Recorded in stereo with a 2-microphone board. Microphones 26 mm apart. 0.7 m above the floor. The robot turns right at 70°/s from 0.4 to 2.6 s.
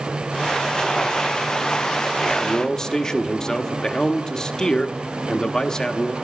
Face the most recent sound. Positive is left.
turn(degrees=30)  # may be behind; listen again after turning